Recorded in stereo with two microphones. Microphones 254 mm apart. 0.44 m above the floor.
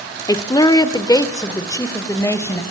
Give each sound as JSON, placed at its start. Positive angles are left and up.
{"t": 0.3, "sound": "a woman speaking", "side_deg": 15, "distance_m": 0.8}